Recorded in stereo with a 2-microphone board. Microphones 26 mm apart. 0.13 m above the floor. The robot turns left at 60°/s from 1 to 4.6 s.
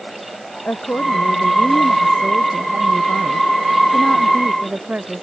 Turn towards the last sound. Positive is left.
turn(degrees=-130)